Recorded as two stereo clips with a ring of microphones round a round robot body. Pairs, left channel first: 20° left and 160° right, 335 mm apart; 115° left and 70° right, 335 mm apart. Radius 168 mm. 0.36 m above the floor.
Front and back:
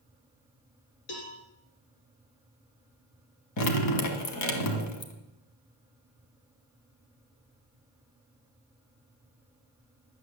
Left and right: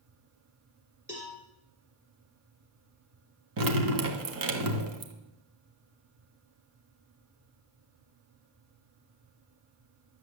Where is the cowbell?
15° left, 3 m.